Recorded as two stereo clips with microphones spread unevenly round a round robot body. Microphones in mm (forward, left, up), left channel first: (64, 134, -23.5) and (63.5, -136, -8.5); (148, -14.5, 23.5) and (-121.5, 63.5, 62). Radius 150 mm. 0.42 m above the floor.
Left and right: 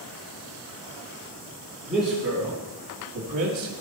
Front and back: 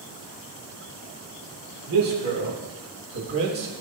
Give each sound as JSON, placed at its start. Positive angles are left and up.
{"t": 1.9, "sound": "a man speaking", "azimuth_deg": 180, "distance_m": 3.5}